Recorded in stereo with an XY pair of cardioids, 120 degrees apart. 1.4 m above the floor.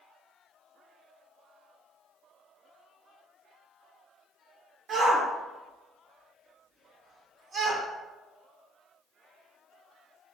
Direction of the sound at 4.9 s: 50° right.